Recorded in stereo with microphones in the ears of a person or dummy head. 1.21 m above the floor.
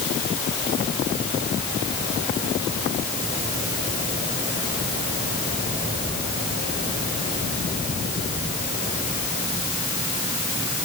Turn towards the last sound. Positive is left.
No sound to turn to.